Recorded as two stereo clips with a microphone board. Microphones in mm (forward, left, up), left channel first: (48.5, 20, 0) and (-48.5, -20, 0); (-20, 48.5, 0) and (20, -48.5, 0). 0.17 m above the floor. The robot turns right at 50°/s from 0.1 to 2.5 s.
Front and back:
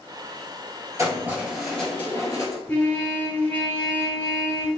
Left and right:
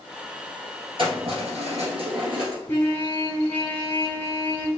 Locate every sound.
1.0 s keys jangling: 100° right, 1.7 m; by 2.6 s 25° right, 1.7 m
2.7 s a trumpet: 70° left, 1.3 m